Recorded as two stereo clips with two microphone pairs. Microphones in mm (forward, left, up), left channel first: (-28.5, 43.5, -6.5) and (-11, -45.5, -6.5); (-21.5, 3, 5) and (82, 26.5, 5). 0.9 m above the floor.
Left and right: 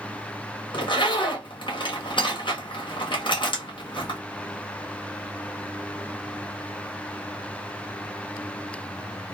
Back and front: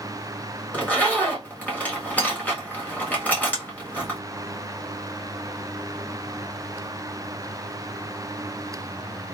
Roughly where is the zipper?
Behind left.